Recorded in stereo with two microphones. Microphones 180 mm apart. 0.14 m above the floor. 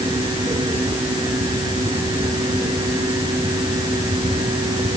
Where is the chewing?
I don't hear chewing.